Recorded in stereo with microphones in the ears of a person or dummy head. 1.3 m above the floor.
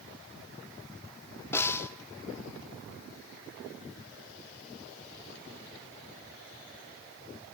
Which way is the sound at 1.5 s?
15° left (ahead or behind).